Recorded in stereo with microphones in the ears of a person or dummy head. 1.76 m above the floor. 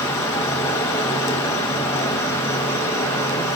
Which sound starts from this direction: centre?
An insect, at 0.0 s.